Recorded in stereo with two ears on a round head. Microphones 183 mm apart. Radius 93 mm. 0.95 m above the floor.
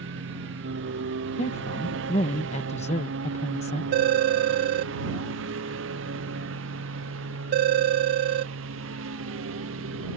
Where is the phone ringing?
55° right (ahead or behind).